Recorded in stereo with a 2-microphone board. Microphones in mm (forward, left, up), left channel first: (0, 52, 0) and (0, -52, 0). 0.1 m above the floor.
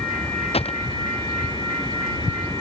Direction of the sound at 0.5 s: 70° left (ahead or behind).